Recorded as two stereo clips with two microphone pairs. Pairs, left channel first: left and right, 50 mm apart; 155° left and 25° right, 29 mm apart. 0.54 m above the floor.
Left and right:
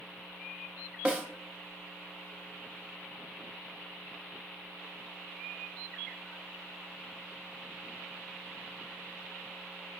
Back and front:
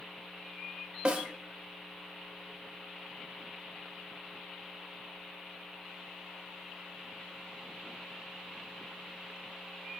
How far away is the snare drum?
About 1.0 m.